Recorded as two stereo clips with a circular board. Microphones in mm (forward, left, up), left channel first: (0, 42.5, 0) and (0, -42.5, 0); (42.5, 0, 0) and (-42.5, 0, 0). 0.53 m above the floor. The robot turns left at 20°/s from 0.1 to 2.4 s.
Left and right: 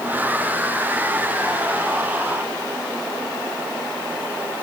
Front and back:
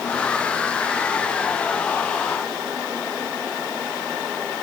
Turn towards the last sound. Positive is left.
No sound to turn to.